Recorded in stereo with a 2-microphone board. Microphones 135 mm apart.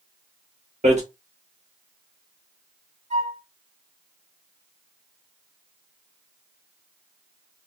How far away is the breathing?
I don't hear breathing.